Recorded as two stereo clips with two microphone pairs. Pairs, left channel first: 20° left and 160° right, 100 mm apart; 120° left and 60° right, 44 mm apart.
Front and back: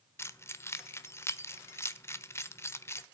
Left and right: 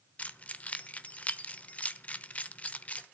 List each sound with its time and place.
0.2 s keys jangling: 70° left, 1.0 m